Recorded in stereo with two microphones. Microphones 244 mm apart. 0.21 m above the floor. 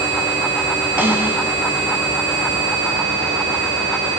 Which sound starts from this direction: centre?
A snare drum, at 1.0 s.